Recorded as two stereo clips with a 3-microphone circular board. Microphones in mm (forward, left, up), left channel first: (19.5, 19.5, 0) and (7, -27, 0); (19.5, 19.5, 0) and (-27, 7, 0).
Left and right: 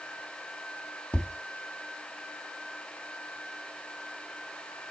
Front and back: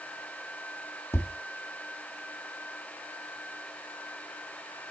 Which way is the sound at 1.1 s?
15° left.